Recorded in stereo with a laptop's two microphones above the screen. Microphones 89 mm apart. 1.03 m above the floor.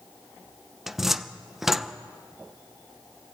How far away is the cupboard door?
About 0.8 m.